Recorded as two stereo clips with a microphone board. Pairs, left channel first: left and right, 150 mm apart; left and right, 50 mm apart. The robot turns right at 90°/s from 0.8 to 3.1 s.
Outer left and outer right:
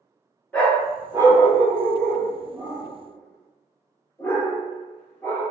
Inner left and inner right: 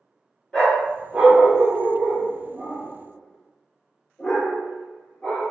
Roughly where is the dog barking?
Centre.